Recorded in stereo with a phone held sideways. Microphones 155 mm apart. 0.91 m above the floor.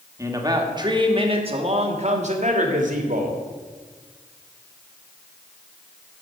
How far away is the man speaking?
About 1.9 m.